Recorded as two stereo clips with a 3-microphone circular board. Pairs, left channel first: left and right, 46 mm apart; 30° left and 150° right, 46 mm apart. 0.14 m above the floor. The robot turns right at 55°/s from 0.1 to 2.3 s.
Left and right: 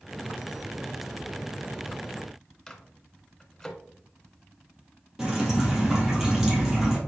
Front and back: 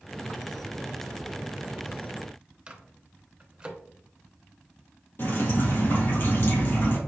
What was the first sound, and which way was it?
A microwave, 155° left.